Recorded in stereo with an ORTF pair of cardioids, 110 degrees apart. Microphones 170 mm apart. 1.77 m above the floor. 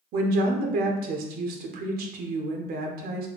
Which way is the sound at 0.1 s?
65° right.